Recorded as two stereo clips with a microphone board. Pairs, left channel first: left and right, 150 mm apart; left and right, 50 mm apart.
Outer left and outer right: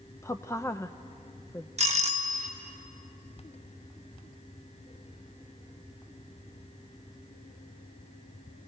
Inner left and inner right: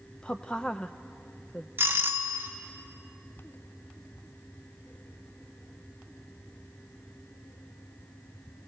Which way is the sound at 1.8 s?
45° right (ahead or behind).